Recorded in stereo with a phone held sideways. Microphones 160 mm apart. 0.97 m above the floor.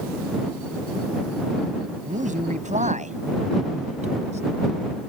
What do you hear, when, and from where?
2.0 s a man speaking: 50° right (ahead or behind); by 4.4 s 45° right (ahead or behind)